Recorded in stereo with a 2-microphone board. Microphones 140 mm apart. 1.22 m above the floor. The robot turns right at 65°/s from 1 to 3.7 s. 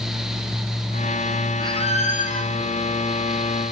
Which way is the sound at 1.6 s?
35° left.